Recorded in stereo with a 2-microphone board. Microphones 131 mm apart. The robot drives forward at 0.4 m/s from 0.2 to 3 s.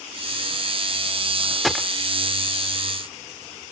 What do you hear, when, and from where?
1.6 s a gunshot: centre (ahead or behind)